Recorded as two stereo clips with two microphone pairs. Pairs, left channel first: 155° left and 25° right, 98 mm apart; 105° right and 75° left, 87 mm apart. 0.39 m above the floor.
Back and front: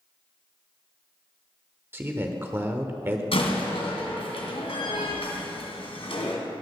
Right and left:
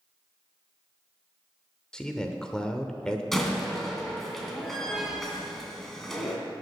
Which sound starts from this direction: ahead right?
A man speaking, at 1.9 s.